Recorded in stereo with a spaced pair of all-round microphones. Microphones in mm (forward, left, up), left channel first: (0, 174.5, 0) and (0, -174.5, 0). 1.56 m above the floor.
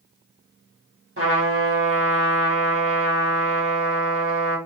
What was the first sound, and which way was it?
A trumpet, 35° right (ahead or behind).